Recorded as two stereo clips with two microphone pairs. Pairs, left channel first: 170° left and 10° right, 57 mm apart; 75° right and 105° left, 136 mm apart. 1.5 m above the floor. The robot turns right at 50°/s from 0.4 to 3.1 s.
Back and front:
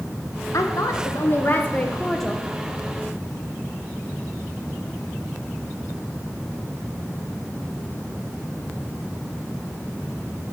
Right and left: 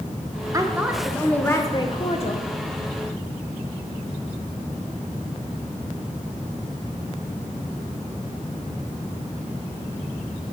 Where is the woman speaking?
165° left, 0.8 m; by 2.5 s 95° right, 0.8 m.